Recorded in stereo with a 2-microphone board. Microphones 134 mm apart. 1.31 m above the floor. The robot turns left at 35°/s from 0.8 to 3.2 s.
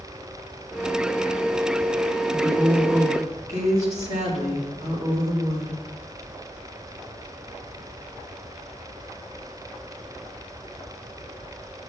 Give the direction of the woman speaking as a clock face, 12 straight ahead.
1 o'clock.